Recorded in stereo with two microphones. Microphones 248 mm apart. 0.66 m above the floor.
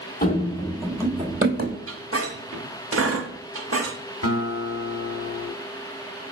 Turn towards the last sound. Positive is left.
turn(degrees=70)  # may be behind; listen again after turning